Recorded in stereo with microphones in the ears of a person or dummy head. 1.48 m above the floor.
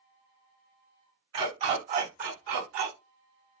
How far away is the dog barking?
About 1.8 m.